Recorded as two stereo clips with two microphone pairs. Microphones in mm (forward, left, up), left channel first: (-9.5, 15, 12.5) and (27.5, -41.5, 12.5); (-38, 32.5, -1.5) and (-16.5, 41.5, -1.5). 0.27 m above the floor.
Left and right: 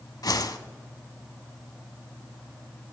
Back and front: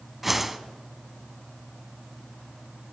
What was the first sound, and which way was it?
A whoosh, 100° left.